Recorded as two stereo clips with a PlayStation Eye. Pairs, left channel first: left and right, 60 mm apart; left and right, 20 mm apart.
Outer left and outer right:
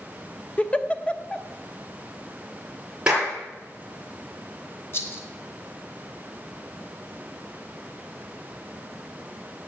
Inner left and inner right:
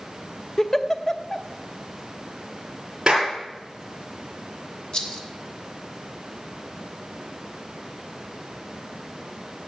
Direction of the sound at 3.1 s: 20° right (ahead or behind).